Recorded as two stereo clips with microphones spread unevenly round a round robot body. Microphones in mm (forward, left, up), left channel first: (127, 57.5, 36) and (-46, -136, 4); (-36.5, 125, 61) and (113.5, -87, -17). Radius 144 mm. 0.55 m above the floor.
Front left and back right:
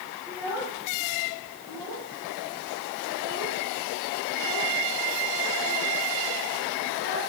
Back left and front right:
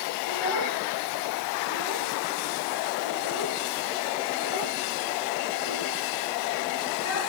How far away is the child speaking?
About 9 m.